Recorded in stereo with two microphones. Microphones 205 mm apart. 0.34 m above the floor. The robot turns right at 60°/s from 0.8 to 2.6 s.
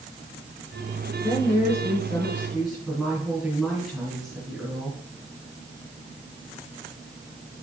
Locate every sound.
1.2 s a woman speaking: 100° left, 4.5 m; by 5.0 s straight behind, 4.5 m